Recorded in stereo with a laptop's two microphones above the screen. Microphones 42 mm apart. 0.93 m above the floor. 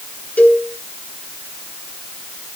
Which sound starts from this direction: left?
A cowbell, at 0.4 s.